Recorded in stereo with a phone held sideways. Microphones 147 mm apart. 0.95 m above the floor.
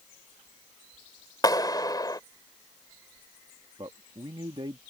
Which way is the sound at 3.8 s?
35° right (ahead or behind).